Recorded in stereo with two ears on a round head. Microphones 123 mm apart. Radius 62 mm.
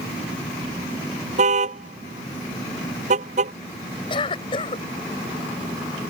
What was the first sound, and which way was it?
A car horn, 55° right (ahead or behind).